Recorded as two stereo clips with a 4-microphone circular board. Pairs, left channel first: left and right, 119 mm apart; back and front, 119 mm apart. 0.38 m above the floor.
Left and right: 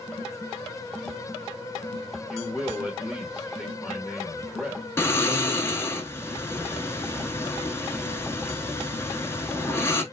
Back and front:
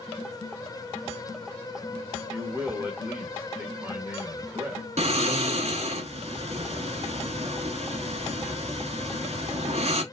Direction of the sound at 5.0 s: 20° left.